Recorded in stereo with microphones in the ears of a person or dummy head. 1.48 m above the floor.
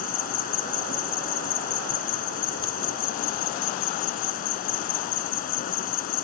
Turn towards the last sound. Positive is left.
turn(degrees=50)  # may be behind; listen again after turning